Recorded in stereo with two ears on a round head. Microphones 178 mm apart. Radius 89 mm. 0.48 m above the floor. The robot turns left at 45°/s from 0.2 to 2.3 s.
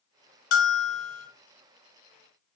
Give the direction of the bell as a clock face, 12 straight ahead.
8 o'clock.